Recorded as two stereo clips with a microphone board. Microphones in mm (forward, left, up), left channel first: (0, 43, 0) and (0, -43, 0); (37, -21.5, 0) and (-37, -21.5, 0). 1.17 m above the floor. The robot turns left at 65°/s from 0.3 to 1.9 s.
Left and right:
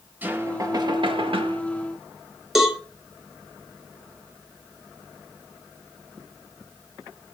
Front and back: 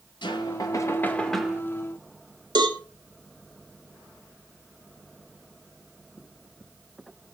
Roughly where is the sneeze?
I don't hear a sneeze.